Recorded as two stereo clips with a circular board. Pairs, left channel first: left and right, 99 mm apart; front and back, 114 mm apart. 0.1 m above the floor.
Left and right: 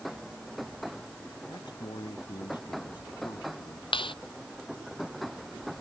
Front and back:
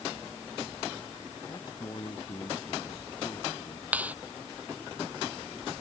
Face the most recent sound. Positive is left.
turn(degrees=105)